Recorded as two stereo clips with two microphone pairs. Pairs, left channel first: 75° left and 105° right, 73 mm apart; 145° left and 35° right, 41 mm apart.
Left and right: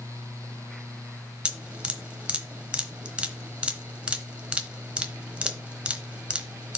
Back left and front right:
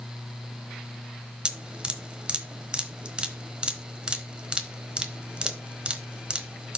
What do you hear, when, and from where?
1.4 s dripping: 50° right, 1.0 m